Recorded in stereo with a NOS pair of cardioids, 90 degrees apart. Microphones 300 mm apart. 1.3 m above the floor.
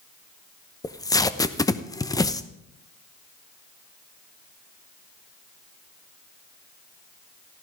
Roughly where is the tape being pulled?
Ahead.